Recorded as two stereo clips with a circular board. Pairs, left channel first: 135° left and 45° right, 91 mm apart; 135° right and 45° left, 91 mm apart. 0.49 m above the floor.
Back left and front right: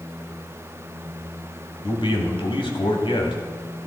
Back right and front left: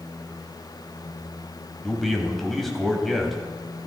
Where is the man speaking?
135° left, 2.5 m.